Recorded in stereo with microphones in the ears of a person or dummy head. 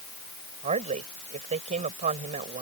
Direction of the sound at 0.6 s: 40° right (ahead or behind).